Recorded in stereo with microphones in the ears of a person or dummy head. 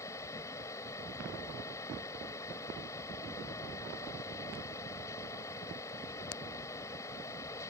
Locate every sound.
0.0 s a fan: 15° left (ahead or behind)